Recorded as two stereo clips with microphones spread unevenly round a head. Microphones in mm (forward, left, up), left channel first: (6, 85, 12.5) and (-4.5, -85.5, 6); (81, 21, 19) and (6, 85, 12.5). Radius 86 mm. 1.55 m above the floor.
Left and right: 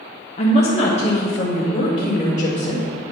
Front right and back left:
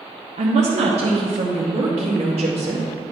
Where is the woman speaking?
140° left, 0.7 m; by 2.8 s 145° left, 2 m.